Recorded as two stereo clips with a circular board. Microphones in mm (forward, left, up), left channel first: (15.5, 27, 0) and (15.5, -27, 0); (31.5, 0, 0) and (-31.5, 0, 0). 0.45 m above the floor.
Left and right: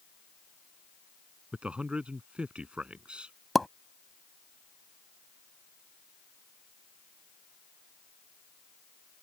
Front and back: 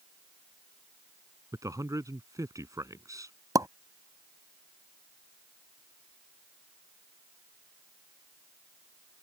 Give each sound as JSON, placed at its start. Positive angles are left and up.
{"t": 1.5, "sound": "a man speaking", "azimuth_deg": -160}
{"t": 3.5, "sound": "a pop", "azimuth_deg": 180}